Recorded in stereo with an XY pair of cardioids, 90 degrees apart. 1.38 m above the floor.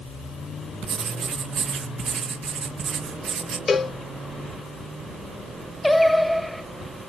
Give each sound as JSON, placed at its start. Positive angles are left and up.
{"t": 0.8, "sound": "writing", "azimuth_deg": -65, "distance_m": 1.4}
{"t": 3.7, "sound": "a cowbell", "azimuth_deg": 40, "distance_m": 0.6}
{"t": 5.8, "sound": "singing", "azimuth_deg": 0, "distance_m": 0.7}